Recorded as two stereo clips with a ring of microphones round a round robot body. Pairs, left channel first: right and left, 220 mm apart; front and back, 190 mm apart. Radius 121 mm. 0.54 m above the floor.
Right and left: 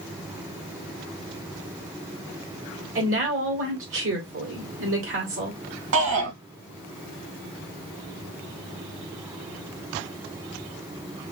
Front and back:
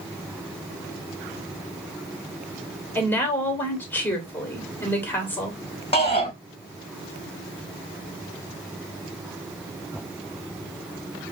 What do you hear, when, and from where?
3.0 s a woman speaking: 80° left, 2.5 m
5.9 s a shout: 60° left, 3 m